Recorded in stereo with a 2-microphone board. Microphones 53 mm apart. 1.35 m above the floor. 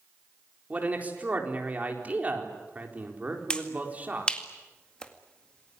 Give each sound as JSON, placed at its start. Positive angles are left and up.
{"t": 0.7, "sound": "a man speaking", "side_deg": -30, "distance_m": 4.5}
{"t": 3.5, "sound": "a finger snap", "side_deg": 20, "distance_m": 2.0}